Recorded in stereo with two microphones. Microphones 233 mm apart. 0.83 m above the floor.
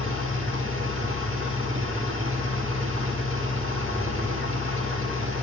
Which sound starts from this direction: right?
An engine running, at 0.0 s.